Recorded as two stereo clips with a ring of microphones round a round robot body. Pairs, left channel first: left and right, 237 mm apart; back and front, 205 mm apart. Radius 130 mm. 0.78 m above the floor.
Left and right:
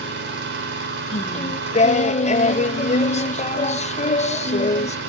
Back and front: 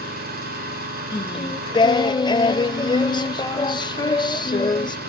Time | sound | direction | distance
0.0 | an engine running | 50° right | 3 m
1.1 | singing | 125° left | 0.8 m